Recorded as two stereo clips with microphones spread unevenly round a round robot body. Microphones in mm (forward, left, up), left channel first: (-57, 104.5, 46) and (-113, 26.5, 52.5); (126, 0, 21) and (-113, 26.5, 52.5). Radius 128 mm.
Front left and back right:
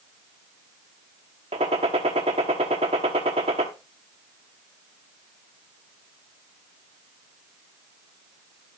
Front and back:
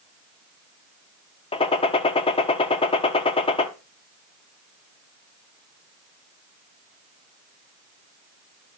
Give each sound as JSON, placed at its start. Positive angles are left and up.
{"t": 1.5, "sound": "a gunshot", "azimuth_deg": -75, "distance_m": 0.9}